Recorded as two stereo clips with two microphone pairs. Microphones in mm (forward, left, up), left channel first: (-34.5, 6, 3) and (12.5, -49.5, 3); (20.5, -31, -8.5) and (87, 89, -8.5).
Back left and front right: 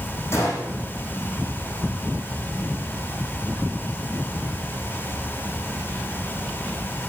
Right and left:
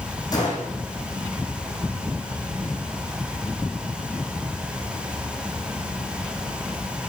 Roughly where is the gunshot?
Behind.